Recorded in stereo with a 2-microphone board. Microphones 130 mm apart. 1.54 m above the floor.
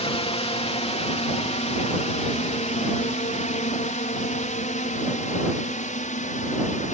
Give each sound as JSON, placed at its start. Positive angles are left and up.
{"t": 0.0, "sound": "a drone", "side_deg": 50}